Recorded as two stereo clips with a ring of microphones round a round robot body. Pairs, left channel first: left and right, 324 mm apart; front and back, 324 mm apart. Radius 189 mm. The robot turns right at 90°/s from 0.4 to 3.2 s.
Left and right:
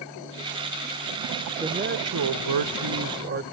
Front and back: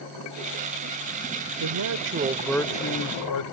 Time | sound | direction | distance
1.6 | a man speaking | 170° right | ?